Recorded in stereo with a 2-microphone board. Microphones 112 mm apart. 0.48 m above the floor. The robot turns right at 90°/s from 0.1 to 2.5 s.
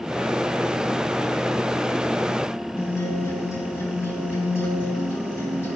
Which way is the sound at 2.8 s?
20° left (ahead or behind).